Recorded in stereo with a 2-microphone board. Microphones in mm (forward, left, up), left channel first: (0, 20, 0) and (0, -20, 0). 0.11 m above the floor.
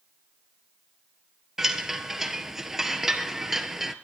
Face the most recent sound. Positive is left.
turn(degrees=-10)  # may be behind; listen again after turning